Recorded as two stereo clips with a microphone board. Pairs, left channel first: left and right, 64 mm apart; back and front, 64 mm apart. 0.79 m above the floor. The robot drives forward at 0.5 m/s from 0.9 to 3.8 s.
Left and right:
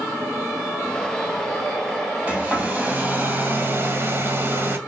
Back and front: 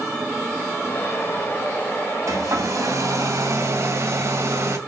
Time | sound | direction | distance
2.3 | a hair dryer | 25° right | 2.5 m